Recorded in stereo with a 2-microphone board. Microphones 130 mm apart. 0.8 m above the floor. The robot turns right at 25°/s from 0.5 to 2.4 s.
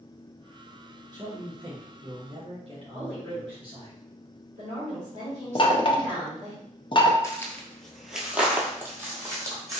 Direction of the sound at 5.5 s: 40° left (ahead or behind).